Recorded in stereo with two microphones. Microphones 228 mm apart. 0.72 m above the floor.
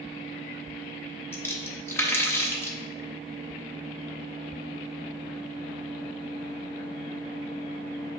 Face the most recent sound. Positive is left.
turn(degrees=10)  # may be behind; listen again after turning